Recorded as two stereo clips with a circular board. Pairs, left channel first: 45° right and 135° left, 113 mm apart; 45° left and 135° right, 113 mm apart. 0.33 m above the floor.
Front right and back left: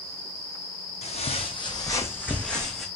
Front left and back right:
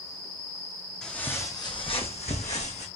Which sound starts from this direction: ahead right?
Footsteps, at 1.0 s.